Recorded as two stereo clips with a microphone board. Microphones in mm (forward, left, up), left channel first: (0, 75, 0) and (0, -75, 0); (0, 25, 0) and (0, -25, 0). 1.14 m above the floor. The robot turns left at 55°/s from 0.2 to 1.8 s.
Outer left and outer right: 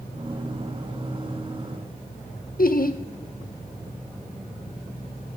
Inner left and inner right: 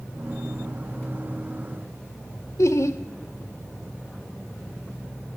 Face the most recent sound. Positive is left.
turn(degrees=70)  # may be behind; listen again after turning